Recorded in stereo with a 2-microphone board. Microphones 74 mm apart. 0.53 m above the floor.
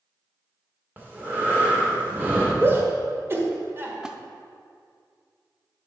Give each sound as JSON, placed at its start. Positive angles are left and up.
{"t": 1.0, "sound": "breathing", "side_deg": -25, "distance_m": 1.8}
{"t": 2.6, "sound": "a shout", "side_deg": -30, "distance_m": 1.4}
{"t": 4.0, "sound": "a splash", "side_deg": -10, "distance_m": 0.5}